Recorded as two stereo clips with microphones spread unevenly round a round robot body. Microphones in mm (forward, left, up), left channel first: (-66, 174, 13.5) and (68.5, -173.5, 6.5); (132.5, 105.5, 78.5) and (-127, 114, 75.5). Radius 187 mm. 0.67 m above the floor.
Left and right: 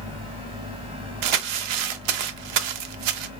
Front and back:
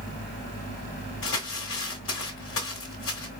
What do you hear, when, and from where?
1.2 s crumpling: 55° right, 0.7 m